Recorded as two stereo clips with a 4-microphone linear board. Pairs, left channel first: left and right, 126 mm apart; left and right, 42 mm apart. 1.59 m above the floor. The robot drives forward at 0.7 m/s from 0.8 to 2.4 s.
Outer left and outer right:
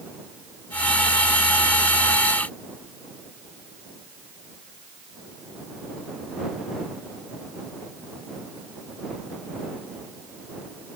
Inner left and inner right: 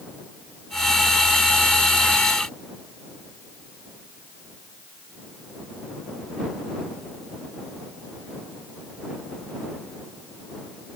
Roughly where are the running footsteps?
I don't hear running footsteps.